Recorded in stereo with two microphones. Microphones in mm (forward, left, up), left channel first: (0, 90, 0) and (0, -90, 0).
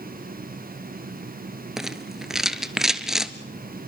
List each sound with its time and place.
1.8 s a rattle: centre (ahead or behind), 1.0 m